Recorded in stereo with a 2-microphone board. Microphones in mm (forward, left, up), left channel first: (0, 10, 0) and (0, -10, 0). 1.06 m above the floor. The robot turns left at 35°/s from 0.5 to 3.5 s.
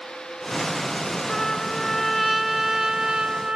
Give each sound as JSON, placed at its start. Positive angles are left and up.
{"t": 1.3, "sound": "a trumpet", "azimuth_deg": 35}